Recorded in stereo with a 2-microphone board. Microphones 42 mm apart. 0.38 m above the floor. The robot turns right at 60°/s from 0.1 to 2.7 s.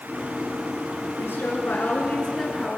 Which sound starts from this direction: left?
A woman speaking, at 1.2 s.